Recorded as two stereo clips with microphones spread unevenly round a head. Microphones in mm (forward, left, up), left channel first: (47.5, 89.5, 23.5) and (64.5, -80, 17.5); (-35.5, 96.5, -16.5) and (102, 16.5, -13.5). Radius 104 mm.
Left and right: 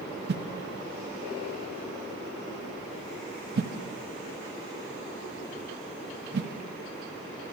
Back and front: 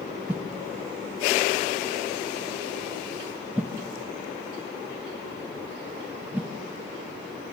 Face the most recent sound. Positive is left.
turn(degrees=-115)